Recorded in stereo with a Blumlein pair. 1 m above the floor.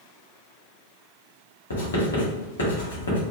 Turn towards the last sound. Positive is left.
turn(degrees=65)